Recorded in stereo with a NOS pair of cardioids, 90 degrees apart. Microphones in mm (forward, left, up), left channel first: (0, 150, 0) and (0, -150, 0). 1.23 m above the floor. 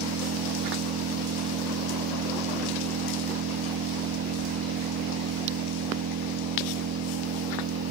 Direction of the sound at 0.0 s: 55° right.